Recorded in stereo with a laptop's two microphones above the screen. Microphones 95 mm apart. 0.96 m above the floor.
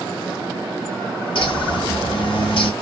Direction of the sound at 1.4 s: 60° left (ahead or behind).